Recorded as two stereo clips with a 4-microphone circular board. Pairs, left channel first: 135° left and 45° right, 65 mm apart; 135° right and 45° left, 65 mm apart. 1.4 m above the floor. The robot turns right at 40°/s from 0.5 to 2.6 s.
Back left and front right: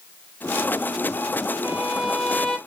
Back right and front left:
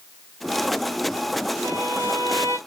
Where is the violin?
15° left, 0.5 m; by 2.6 s 55° left, 0.5 m.